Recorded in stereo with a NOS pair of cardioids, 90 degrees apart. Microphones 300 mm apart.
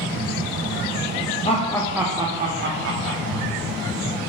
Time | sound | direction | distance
1.4 | laughter | 20° left | 0.6 m